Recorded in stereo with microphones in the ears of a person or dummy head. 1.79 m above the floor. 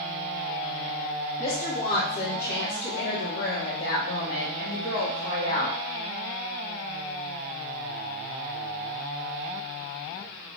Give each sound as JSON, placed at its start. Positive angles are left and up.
{"t": 1.4, "sound": "a woman speaking", "side_deg": 40, "distance_m": 1.6}